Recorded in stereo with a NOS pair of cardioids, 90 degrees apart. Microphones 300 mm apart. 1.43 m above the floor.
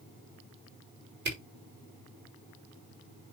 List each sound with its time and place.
1.2 s a camera shutter: 35° right, 5 m